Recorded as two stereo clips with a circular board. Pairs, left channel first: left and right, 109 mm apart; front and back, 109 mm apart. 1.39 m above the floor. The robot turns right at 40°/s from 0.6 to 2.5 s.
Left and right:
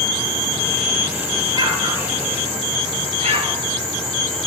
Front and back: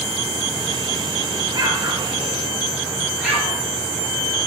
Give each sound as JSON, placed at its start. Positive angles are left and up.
{"t": 1.5, "sound": "an explosion", "azimuth_deg": -145, "distance_m": 3.0}